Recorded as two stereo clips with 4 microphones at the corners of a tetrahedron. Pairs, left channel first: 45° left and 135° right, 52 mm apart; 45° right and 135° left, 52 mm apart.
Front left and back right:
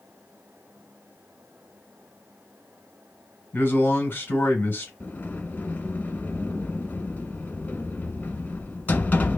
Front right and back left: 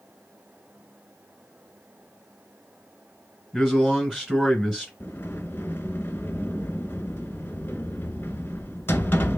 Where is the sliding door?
5° right, 0.5 m.